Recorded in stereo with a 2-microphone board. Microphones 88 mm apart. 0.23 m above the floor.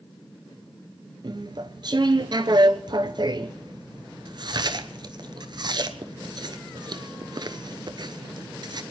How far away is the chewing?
About 0.8 m.